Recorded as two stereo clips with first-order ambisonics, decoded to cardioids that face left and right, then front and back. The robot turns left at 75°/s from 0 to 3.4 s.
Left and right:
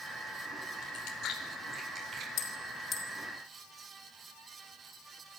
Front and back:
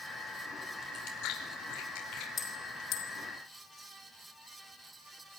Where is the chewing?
65° left, 4.5 m; by 2.3 s 45° right, 4.5 m.